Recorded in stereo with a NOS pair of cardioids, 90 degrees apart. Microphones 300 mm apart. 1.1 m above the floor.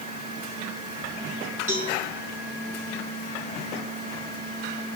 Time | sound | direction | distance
1.7 | a cowbell | 25° right | 2.5 m